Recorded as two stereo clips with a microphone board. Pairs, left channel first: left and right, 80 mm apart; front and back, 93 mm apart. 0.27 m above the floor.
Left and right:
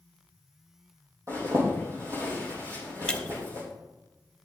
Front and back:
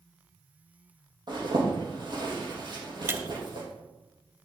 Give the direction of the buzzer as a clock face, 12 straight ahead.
No buzzer in this recording.